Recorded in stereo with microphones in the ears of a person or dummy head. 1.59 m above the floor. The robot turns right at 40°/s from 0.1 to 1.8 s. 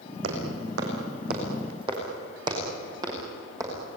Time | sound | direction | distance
0.2 | footsteps | 65° right (ahead or behind) | 6.5 m